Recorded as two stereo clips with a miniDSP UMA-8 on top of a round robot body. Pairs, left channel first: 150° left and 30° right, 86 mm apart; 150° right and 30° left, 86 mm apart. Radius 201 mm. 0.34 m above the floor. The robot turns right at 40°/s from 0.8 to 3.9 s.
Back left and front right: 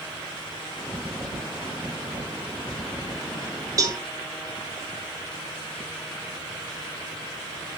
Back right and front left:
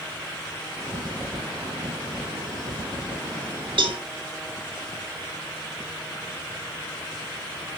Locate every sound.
3.8 s a cowbell: 20° left, 2 m; by 4.0 s 25° left, 2 m